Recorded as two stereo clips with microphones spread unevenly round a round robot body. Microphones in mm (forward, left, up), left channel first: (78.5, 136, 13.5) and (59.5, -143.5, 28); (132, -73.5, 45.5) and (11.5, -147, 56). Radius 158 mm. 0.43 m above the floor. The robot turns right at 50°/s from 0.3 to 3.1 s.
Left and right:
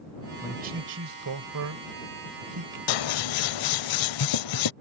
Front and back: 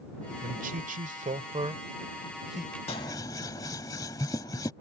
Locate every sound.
0.4 s a man speaking: 165° right; by 2.8 s 50° right
2.9 s scissors: 95° left; by 4.7 s 105° left